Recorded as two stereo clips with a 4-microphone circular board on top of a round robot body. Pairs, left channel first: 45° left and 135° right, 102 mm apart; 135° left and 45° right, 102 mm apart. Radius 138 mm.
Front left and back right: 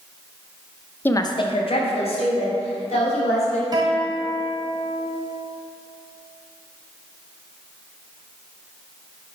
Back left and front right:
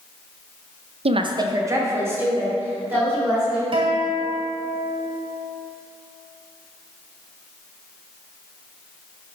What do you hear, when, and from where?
1.1 s a woman speaking: 25° right, 0.6 m; by 3.6 s 30° left, 4 m
3.7 s a guitar: 80° right, 1.3 m